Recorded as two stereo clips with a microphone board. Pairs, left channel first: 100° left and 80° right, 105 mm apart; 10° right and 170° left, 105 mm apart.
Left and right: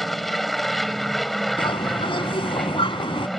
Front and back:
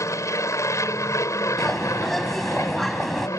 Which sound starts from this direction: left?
A bird, at 1.6 s.